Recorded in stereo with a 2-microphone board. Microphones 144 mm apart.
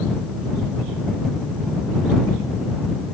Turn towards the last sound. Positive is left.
No sound to turn to.